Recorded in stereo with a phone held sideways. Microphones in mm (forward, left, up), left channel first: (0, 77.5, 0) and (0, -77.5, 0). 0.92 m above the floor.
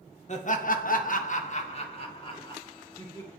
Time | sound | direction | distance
0.3 | laughter | 50° left (ahead or behind) | 1.0 m